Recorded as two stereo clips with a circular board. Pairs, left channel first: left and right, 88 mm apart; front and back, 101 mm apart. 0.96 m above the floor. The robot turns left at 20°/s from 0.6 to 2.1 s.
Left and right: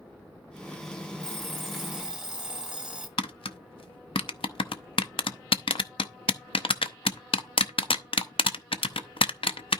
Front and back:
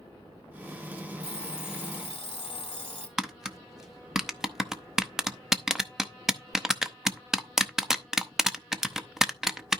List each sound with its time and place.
1.2 s an alarm clock: 10° left, 1.4 m; by 3.1 s 10° right, 1.4 m
3.2 s tapping: 95° left, 0.6 m